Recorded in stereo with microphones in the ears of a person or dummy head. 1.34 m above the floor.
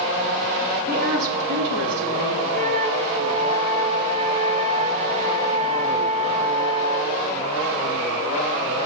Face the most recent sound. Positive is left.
turn(degrees=-40)  # may be behind; listen again after turning